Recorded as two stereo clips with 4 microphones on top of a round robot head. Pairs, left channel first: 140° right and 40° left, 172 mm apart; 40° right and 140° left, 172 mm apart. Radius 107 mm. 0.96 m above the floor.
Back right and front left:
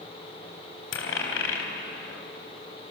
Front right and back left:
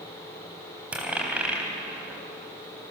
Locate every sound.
0.9 s a dropped coin: 135° right, 3.5 m